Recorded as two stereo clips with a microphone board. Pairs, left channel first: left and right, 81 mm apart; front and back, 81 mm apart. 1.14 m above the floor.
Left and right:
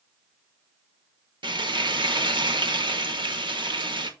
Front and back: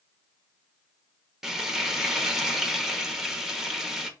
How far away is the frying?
About 1.5 m.